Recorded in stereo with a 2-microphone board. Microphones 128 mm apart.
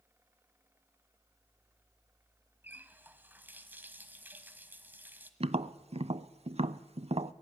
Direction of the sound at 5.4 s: 50° right (ahead or behind).